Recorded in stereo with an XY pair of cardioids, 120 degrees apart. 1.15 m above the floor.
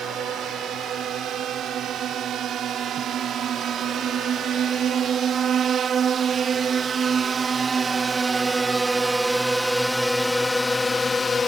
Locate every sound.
0.0 s a drone: 60° right; by 11.5 s 50° left